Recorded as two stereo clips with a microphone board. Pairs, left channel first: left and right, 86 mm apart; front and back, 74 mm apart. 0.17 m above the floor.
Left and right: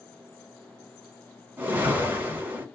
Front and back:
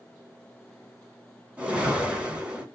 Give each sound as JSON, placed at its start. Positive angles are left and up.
{"t": 1.6, "sound": "a whoosh", "azimuth_deg": -130, "distance_m": 1.2}